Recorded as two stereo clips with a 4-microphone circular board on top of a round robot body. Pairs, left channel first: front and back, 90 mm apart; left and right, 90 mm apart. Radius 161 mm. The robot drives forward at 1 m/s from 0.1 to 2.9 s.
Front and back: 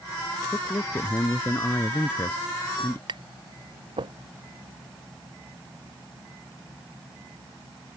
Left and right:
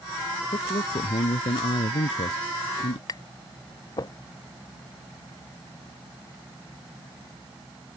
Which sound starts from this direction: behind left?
Tapping, at 3.1 s.